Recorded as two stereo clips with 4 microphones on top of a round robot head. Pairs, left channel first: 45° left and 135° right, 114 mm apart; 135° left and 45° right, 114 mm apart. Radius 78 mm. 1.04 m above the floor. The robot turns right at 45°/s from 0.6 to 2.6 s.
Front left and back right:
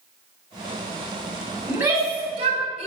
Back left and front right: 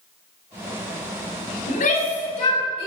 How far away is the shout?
About 4.5 m.